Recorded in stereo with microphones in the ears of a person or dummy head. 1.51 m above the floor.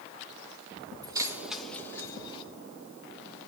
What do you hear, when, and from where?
1.0 s keys jangling: 25° right (ahead or behind), 1.4 m; by 2.4 s 30° left (ahead or behind), 1.8 m